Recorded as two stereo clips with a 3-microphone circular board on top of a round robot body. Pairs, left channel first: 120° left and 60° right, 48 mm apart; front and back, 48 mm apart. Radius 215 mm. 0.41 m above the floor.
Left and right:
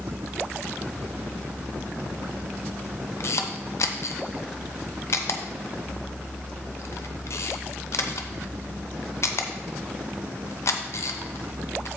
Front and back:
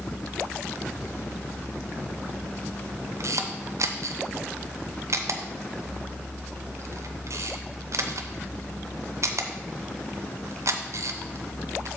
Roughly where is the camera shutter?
Behind left.